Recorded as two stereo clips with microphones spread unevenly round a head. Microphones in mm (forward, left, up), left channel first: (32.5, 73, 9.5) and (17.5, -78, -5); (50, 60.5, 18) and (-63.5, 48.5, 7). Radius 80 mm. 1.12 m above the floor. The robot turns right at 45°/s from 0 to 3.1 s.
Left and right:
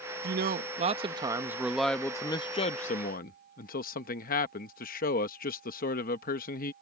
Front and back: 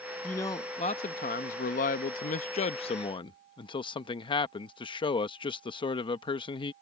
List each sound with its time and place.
0.2 s a man speaking: 75° right; by 6.7 s 55° left